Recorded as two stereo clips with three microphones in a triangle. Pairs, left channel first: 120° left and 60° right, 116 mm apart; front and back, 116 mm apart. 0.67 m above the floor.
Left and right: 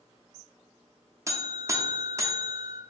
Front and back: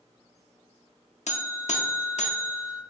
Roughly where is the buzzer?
Ahead.